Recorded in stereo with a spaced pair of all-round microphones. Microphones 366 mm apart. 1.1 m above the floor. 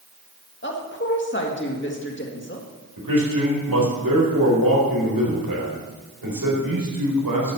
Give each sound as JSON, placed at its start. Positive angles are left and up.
{"t": 0.6, "sound": "a woman speaking", "side_deg": 35, "distance_m": 1.7}
{"t": 3.0, "sound": "a man speaking", "side_deg": -75, "distance_m": 4.0}